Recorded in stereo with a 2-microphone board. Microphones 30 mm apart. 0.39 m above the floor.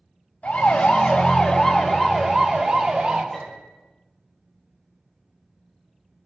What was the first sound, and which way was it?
A siren, 45° left (ahead or behind).